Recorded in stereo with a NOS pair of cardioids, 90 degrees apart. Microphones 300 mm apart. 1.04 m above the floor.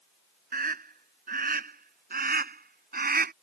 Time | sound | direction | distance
0.5 | a scream | 30° right | ?